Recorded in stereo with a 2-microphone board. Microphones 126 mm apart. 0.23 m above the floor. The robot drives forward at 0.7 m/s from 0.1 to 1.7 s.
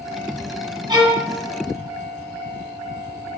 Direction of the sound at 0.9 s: 35° right (ahead or behind).